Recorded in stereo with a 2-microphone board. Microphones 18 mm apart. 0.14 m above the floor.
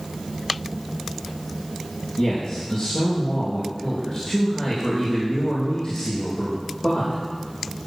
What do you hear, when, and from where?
2.2 s a man speaking: 25° left (ahead or behind), 4.5 m